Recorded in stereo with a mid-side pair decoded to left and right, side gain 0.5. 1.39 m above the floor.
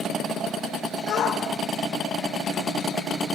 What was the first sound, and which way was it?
A shout, 70° left.